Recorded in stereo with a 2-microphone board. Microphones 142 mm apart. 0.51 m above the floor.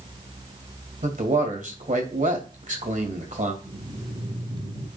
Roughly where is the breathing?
Right.